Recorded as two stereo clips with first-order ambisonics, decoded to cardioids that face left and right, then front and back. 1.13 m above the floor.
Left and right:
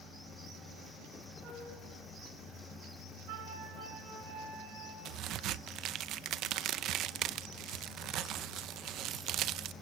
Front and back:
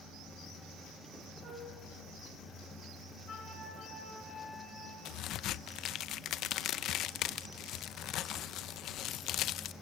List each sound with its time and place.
1.4 s a flute: 135° right, 9 m
3.3 s a flute: 70° right, 5 m
5.0 s a crack: 45° right, 0.5 m